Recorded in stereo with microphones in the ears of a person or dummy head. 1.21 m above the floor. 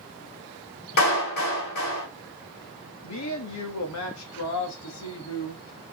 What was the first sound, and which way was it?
A clap, 70° left (ahead or behind).